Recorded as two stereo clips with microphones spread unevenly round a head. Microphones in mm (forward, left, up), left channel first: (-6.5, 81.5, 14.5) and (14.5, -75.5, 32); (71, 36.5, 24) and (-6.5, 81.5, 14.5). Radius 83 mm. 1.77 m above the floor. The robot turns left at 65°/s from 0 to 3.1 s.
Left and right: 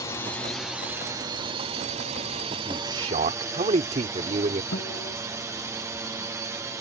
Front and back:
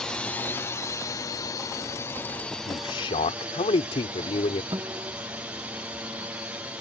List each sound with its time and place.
0.0 s a drone: 55° left; by 6.8 s 150° right
2.6 s a man speaking: 5° right; by 4.6 s 35° right
4.7 s a guitar: 95° left